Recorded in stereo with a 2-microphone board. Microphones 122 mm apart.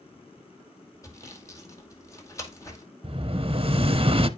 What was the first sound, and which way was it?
Sawing, 25° left (ahead or behind).